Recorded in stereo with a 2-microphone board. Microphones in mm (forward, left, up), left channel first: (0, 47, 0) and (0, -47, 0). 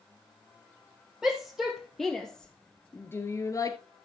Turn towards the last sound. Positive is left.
turn(degrees=40)  # may be behind; listen again after turning